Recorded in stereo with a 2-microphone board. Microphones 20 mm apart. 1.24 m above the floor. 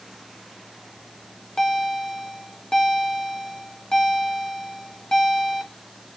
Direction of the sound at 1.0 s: 35° left (ahead or behind).